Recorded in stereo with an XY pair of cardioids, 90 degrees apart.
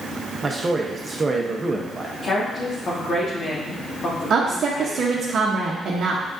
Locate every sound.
0.4 s a man speaking: 30° right, 0.8 m
2.2 s a woman speaking: 50° left, 1.5 m
4.3 s a woman speaking: 60° right, 0.8 m